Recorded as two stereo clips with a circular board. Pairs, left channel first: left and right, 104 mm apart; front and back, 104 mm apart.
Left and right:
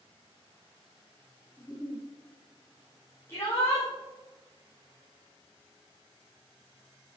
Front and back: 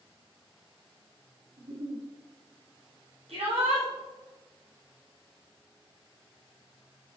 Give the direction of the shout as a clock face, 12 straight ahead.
7 o'clock.